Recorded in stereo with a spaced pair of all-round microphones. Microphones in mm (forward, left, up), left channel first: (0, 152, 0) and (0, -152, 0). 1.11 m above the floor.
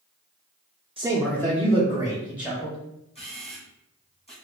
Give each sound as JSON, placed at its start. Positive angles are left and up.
{"t": 1.0, "sound": "a man speaking", "side_deg": -20, "distance_m": 0.5}
{"t": 3.1, "sound": "a camera shutter", "side_deg": 20, "distance_m": 1.5}